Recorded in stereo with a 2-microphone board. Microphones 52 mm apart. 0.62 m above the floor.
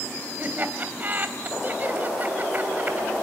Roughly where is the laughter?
Right.